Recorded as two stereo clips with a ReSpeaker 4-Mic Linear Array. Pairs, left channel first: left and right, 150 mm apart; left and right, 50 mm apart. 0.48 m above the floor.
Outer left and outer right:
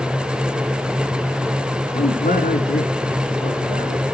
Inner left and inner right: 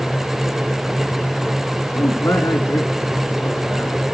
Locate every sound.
1.9 s a man speaking: 75° left (ahead or behind), 5 m